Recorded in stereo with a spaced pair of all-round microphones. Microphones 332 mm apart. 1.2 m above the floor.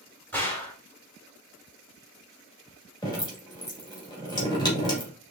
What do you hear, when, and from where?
0.3 s a gunshot: 5° left (ahead or behind), 1.7 m
3.0 s dripping: 15° left (ahead or behind), 1.9 m